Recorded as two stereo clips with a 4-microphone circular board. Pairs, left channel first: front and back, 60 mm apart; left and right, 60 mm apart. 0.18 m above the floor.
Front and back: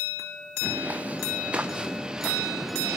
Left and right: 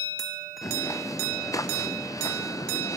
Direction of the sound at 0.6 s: 115° left.